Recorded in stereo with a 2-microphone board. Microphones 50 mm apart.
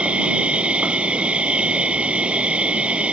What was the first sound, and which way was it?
An insect, 25° right (ahead or behind).